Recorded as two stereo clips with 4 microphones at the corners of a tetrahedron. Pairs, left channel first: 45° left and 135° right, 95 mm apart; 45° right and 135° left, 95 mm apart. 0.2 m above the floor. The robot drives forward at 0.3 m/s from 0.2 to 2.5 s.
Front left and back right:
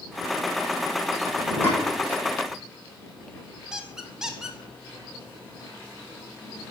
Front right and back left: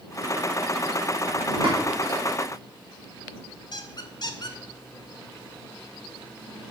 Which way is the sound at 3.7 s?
50° right.